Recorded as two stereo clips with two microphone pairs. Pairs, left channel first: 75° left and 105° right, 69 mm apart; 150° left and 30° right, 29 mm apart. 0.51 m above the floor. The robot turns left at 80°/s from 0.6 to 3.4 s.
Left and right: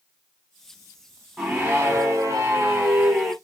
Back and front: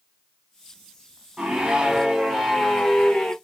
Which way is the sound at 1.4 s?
20° right.